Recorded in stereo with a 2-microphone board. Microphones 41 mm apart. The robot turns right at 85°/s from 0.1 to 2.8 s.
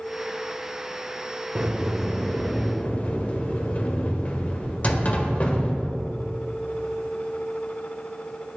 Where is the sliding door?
45° right, 1.3 m; by 6.3 s 65° left, 1.3 m.